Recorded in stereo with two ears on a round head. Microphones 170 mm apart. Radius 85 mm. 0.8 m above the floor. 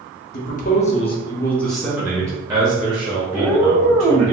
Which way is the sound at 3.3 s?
5° left (ahead or behind).